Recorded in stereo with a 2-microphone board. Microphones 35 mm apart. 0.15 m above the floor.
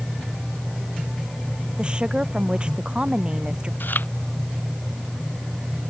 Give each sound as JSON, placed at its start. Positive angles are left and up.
{"t": 1.8, "sound": "a woman speaking", "side_deg": -30}
{"t": 3.8, "sound": "chewing", "side_deg": 70}